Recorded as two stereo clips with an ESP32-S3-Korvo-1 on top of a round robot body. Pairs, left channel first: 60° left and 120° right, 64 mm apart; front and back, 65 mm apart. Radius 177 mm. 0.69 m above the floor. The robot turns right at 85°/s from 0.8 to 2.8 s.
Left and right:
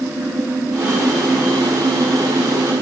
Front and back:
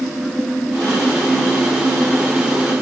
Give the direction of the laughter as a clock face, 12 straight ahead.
No laughter in this recording.